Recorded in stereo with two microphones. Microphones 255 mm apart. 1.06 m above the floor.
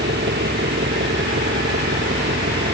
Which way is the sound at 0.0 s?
45° right (ahead or behind).